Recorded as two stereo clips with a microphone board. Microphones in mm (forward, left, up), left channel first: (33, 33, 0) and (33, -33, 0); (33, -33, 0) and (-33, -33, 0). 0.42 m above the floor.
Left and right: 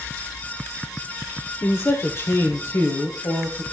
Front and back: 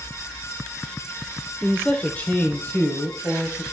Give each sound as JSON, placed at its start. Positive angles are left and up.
{"t": 1.6, "sound": "a man speaking", "azimuth_deg": 70, "distance_m": 0.9}